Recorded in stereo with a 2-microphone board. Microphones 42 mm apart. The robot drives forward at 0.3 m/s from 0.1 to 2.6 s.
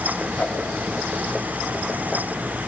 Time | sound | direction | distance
0.4 | a whoosh | 35° left (ahead or behind) | 3 m